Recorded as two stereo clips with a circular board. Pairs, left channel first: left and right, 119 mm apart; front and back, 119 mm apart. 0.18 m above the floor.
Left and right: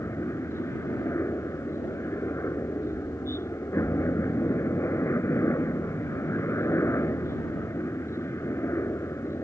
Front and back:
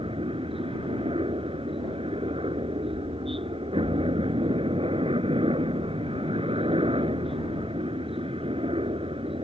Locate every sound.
0.0 s a helicopter: 155° left